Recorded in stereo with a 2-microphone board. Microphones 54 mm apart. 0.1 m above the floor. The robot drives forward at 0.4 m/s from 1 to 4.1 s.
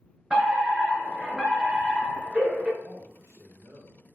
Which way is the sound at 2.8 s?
60° right (ahead or behind).